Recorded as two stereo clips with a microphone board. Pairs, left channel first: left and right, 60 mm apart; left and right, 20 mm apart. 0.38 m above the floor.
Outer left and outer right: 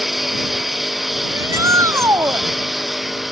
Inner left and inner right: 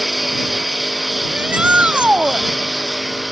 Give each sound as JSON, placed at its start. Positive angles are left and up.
{"t": 0.0, "sound": "a lawn mower", "side_deg": 0}
{"t": 1.3, "sound": "a shout", "side_deg": -60}